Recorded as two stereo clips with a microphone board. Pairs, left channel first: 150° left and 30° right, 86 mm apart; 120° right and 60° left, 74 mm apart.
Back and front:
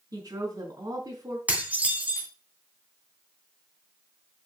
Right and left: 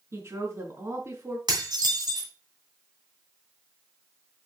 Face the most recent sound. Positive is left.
turn(degrees=40)